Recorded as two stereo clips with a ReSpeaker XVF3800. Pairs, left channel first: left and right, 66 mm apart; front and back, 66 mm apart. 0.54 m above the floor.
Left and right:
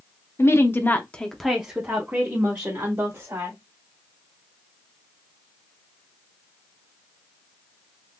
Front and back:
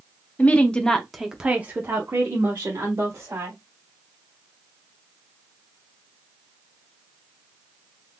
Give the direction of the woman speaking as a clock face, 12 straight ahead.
10 o'clock.